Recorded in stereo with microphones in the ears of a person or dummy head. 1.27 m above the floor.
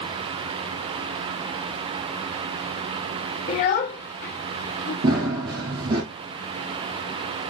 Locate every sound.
3.5 s a child speaking: 30° left (ahead or behind), 0.7 m; by 4.9 s 70° left (ahead or behind), 2.0 m
5.0 s running footsteps: 25° right (ahead or behind), 1.5 m